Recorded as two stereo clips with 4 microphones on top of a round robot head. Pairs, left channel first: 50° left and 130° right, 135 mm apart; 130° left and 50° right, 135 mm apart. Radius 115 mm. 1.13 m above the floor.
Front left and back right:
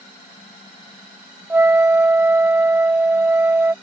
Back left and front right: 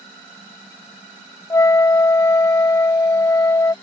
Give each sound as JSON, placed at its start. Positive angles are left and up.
{"t": 1.5, "sound": "a flute", "azimuth_deg": 170}